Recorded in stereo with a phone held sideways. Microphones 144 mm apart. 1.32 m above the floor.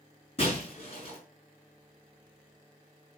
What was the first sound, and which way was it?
Breaking glass, 45° left (ahead or behind).